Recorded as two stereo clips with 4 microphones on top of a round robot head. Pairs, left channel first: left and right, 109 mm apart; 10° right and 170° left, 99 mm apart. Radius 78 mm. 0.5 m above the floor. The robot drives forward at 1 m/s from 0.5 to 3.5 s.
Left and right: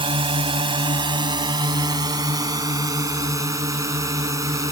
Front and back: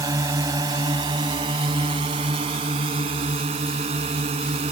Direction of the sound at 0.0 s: 130° right.